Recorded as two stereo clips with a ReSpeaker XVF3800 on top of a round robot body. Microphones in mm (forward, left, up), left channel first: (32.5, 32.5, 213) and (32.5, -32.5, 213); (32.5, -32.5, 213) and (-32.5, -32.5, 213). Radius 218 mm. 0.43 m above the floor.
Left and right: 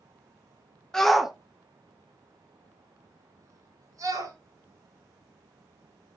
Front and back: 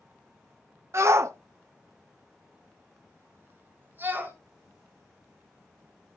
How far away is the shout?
About 1.4 m.